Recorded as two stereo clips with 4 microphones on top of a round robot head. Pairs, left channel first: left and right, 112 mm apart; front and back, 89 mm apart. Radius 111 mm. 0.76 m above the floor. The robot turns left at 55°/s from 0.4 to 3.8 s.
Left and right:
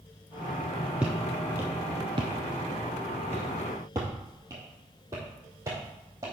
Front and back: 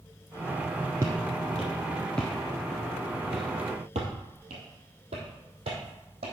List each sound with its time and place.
1.0 s footsteps: 165° right, 0.7 m; by 6.3 s 160° right, 3 m